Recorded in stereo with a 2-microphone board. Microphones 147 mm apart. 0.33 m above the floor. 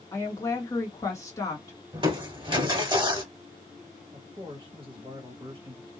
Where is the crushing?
35° right (ahead or behind), 0.8 m.